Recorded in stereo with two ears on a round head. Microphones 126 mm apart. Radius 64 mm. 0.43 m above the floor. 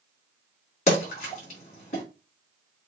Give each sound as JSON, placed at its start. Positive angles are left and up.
{"t": 0.9, "sound": "a splash", "side_deg": 50, "distance_m": 4.0}